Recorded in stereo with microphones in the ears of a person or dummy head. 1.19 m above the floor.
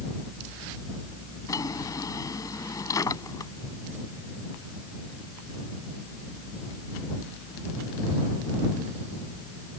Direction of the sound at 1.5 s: 25° left (ahead or behind).